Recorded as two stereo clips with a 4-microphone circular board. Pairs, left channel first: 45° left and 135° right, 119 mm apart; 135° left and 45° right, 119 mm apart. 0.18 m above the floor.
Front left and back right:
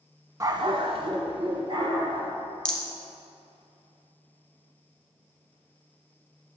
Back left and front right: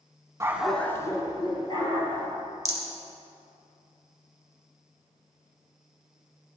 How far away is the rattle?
About 1.0 m.